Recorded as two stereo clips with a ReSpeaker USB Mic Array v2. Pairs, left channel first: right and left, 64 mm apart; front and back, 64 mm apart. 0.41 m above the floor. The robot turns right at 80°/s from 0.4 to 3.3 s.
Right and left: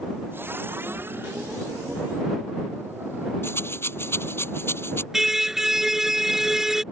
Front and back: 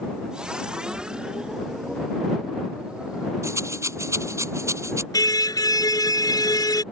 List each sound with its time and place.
3.4 s a rattle: 140° right
5.1 s a car horn: 5° left